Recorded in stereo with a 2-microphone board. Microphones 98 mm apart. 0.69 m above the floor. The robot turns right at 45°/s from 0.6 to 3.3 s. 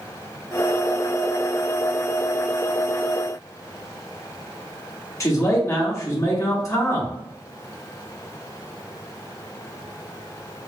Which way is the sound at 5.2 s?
30° left (ahead or behind).